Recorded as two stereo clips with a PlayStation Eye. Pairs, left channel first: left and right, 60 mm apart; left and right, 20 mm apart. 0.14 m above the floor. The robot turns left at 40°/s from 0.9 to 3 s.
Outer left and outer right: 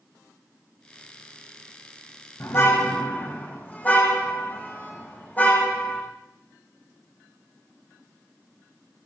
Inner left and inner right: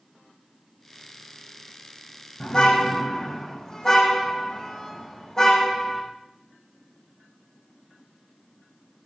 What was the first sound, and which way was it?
A car horn, 50° left (ahead or behind).